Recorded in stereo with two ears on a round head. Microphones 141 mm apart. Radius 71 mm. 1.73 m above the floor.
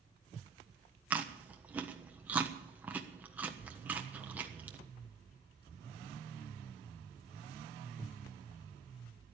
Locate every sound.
1.1 s chewing: 10° right (ahead or behind), 1.2 m